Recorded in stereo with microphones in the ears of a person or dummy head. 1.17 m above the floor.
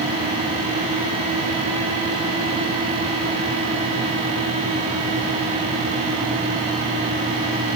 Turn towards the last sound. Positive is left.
No sound to turn to.